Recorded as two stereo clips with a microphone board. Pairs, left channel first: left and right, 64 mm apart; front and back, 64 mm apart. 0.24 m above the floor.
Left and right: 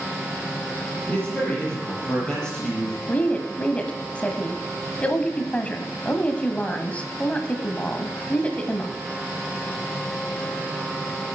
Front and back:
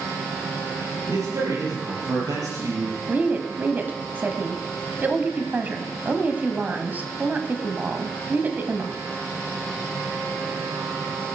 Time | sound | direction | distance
1.1 | a man speaking | 155° left | 6 m
3.1 | a woman speaking | 140° left | 1.2 m